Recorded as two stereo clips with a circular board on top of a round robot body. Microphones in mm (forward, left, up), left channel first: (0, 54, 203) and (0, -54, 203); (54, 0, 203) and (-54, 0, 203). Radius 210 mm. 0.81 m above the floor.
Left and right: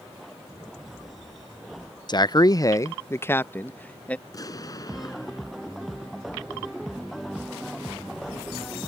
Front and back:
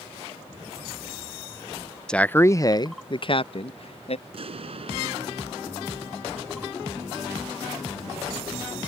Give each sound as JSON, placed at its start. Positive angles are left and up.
{"t": 2.1, "sound": "a man speaking", "azimuth_deg": 80}
{"t": 4.3, "sound": "an explosion", "azimuth_deg": 145}